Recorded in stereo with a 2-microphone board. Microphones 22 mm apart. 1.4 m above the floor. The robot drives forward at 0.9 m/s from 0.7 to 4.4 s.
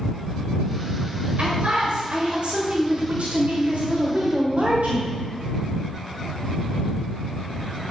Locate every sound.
1.4 s a man speaking: 55° right (ahead or behind), 6 m; by 5.1 s 85° right, 5 m